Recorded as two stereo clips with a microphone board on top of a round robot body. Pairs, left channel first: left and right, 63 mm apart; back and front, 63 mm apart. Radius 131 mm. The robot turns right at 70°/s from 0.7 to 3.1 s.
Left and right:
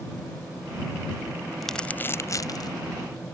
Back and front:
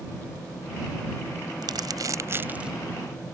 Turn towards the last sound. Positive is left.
turn(degrees=105)